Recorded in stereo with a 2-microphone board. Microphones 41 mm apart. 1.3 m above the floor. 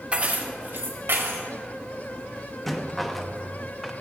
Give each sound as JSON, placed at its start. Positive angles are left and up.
{"t": 0.1, "sound": "keys jangling", "side_deg": -25, "distance_m": 1.1}
{"t": 2.7, "sound": "a rattle", "side_deg": 5, "distance_m": 0.6}